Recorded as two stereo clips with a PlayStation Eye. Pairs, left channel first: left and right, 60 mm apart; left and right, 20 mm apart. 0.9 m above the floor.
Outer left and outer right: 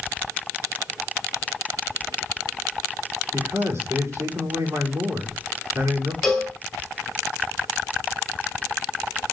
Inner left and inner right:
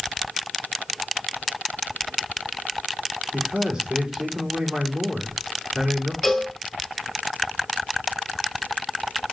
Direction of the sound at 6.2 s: Centre (ahead or behind).